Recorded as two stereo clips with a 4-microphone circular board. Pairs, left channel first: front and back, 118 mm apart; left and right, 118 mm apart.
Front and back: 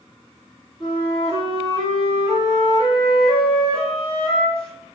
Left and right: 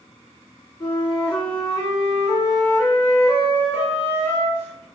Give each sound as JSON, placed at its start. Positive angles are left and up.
{"t": 0.8, "sound": "a flute", "azimuth_deg": 30, "distance_m": 1.8}